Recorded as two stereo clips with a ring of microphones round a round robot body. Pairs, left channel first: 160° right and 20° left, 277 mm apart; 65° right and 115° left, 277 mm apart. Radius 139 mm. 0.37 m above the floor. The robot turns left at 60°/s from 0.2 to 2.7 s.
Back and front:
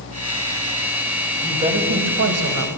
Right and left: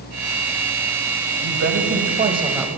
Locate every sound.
1.4 s a woman speaking: 100° left, 2 m; by 2.7 s 25° left, 2 m